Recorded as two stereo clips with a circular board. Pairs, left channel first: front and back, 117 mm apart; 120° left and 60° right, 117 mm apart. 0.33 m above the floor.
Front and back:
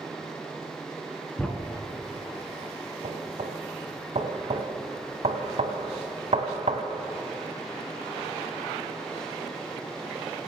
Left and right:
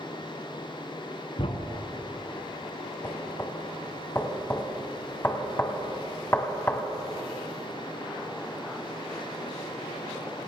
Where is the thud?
80° left, 1.3 m.